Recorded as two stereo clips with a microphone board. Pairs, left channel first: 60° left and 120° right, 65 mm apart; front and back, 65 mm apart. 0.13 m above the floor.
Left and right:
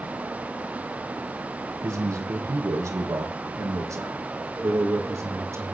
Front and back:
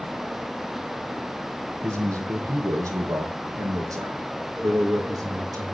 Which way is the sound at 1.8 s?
145° right.